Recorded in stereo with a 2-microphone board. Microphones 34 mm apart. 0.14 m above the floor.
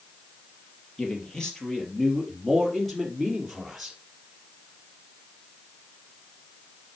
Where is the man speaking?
20° left (ahead or behind), 3.5 m; by 4.0 s 5° right (ahead or behind), 3.5 m.